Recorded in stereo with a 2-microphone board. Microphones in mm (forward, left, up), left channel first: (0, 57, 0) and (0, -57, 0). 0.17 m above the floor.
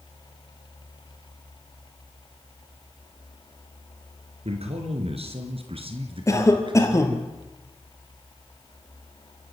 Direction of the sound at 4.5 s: 65° right (ahead or behind).